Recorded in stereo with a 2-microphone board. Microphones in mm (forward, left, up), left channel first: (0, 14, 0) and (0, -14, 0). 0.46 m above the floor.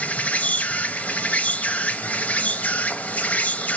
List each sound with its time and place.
0.0 s an insect: 70° left (ahead or behind), 0.9 m